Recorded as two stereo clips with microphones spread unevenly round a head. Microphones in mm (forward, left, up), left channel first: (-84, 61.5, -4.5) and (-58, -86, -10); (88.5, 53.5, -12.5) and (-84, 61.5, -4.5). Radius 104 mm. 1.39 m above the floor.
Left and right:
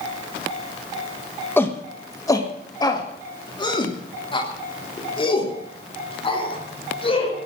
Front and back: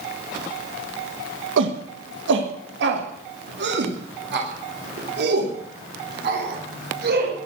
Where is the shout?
175° left, 1.4 m; by 7.5 s 150° left, 5 m.